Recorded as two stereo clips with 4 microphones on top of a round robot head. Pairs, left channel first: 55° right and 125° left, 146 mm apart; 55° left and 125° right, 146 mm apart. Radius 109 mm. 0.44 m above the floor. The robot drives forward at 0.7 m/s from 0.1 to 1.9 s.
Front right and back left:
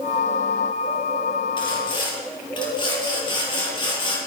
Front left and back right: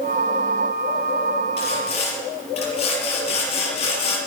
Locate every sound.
1.6 s sawing: 5° left, 6 m